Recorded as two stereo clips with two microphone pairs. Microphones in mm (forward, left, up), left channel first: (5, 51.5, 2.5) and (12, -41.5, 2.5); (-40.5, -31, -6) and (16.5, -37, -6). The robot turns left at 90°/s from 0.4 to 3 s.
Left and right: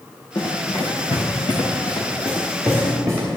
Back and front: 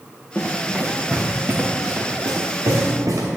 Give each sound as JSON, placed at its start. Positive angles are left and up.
{"t": 0.3, "sound": "running footsteps", "azimuth_deg": 135, "distance_m": 3.0}